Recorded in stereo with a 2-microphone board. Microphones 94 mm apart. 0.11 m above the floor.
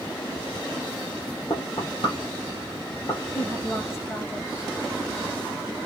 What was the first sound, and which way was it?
Knocking, 55° left (ahead or behind).